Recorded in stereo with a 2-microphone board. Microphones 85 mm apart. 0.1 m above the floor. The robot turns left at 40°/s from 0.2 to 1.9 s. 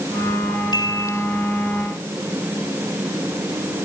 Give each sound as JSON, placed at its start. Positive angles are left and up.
{"t": 0.7, "sound": "a chime", "side_deg": 50}